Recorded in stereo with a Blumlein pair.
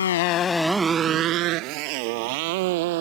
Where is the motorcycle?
65° left; by 3.0 s 50° right.